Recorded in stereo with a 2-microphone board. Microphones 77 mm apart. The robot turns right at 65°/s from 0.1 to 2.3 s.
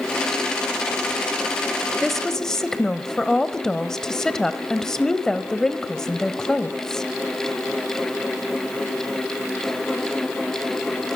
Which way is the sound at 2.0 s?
Centre (ahead or behind).